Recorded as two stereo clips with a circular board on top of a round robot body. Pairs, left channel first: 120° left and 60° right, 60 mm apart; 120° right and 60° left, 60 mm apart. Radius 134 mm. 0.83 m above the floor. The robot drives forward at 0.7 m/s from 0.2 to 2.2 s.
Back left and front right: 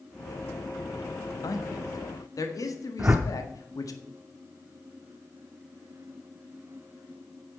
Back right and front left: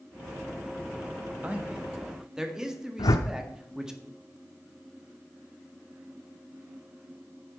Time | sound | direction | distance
1.4 | a man speaking | 125° left | 1.4 m
3.0 | a whoosh | 125° right | 0.8 m